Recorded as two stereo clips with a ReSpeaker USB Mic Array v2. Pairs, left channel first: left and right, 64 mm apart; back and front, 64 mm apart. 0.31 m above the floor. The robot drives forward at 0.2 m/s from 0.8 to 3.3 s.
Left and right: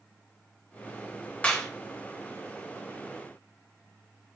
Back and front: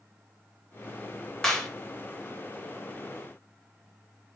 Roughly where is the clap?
Left.